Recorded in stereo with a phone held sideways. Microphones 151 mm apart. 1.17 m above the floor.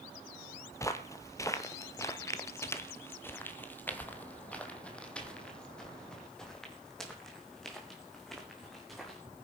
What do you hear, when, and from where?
0.7 s footsteps: 20° left (ahead or behind), 1.4 m; by 9.2 s centre (ahead or behind), 4 m